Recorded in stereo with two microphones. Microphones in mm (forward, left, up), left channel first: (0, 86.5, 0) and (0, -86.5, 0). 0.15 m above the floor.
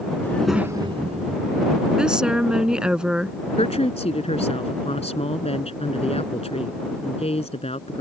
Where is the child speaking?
15° left (ahead or behind); by 3.0 s 50° right (ahead or behind).